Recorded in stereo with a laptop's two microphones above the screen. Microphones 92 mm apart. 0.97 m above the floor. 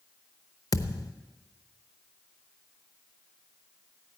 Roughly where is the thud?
Left.